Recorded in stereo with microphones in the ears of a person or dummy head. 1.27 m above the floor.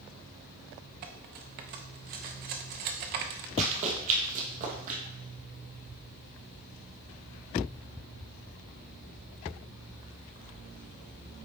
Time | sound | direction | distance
1.0 | cutlery clinking | 40° right (ahead or behind) | 0.7 m
3.6 | running footsteps | 40° right (ahead or behind) | 1.9 m